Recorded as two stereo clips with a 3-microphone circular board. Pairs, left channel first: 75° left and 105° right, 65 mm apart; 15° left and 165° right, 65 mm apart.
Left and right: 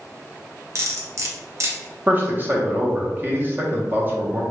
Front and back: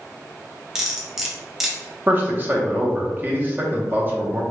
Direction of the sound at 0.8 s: 85° right.